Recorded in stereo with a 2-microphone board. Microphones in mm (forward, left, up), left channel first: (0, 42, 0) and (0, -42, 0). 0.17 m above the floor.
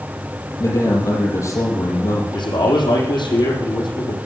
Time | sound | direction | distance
0.6 | a man speaking | 50° left (ahead or behind) | 4 m
2.3 | a man speaking | 70° left (ahead or behind) | 6.5 m